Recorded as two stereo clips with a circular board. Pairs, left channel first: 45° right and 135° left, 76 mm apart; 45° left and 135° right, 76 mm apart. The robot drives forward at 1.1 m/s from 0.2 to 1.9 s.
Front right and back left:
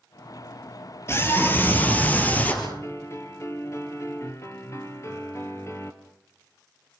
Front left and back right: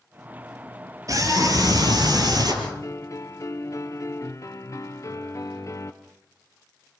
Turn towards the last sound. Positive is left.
turn(degrees=0)